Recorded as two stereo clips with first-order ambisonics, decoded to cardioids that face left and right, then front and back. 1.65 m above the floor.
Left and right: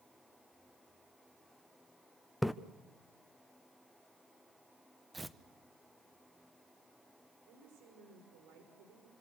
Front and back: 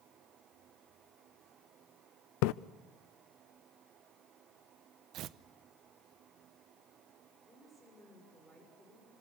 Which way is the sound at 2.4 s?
Straight ahead.